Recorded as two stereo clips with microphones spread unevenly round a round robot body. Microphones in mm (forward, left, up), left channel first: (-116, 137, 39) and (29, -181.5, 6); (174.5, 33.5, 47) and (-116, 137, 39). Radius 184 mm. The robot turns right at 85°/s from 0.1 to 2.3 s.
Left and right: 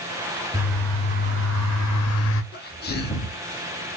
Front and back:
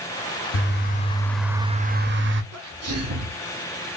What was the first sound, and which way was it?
A bird, straight ahead.